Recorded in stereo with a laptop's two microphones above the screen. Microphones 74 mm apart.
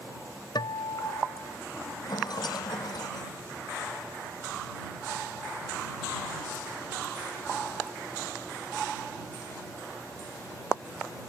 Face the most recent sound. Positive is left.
turn(degrees=65)  # may be behind; listen again after turning